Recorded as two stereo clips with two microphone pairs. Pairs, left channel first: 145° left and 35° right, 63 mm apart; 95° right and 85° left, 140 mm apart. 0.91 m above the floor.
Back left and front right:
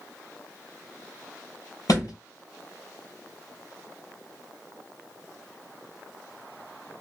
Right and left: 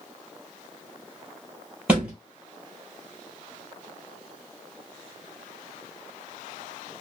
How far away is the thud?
About 2.5 m.